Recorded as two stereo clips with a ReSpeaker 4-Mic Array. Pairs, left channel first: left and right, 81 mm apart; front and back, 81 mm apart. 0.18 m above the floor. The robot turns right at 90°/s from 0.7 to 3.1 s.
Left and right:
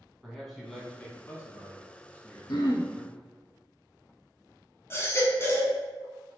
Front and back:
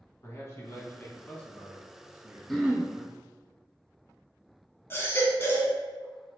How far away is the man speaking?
About 1.3 m.